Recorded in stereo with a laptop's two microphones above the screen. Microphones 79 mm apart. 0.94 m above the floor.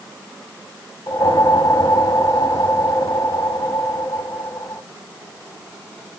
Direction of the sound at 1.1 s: 55° left (ahead or behind).